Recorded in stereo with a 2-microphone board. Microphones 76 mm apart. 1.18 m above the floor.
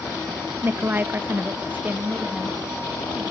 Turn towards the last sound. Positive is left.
turn(degrees=-20)  # may be behind; listen again after turning